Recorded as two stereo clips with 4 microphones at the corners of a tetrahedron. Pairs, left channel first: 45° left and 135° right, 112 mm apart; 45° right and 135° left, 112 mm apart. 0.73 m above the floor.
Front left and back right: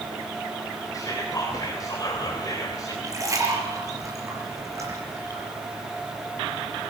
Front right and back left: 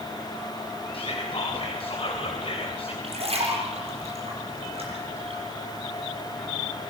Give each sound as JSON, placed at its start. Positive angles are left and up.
{"t": 0.9, "sound": "whispering", "azimuth_deg": -15, "distance_m": 3.0}
{"t": 3.0, "sound": "a splash", "azimuth_deg": 165, "distance_m": 6.0}